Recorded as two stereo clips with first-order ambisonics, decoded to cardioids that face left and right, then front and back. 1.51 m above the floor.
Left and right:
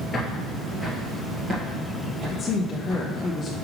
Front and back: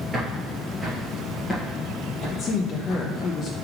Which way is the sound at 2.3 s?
35° left.